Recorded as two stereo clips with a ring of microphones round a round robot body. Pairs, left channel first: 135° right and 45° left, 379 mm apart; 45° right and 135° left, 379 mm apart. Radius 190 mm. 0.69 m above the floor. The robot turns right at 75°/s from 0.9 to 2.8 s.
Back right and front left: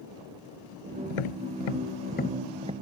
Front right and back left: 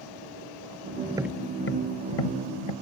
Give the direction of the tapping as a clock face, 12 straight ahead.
5 o'clock.